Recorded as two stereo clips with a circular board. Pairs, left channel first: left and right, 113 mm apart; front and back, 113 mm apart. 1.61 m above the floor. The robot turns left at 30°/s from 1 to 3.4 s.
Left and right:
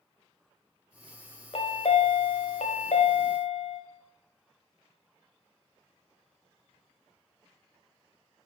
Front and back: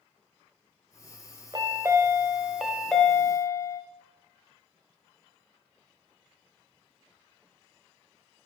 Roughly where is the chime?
Behind left.